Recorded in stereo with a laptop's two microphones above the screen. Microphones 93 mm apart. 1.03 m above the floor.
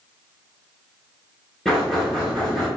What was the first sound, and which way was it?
Knocking, centre (ahead or behind).